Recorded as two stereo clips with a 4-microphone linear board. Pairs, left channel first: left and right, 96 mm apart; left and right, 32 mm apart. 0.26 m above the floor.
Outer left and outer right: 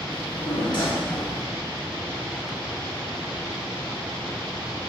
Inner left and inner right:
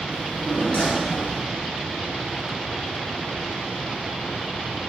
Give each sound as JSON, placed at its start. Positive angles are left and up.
{"t": 0.1, "sound": "a drawer", "side_deg": 55, "distance_m": 1.7}